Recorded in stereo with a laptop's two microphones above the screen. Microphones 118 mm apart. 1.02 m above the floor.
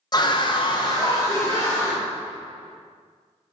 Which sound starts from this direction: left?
A scream, at 0.1 s.